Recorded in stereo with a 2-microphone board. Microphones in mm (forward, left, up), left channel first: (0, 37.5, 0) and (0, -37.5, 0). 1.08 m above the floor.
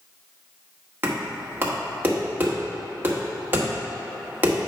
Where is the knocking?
25° right (ahead or behind), 1.5 m.